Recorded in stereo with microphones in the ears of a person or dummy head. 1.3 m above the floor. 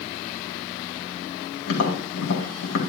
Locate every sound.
1.7 s tapping: 70° left (ahead or behind), 2 m